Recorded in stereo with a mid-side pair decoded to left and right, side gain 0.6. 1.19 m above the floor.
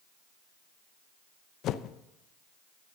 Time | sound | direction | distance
1.6 | a whoosh | 60° left | 0.6 m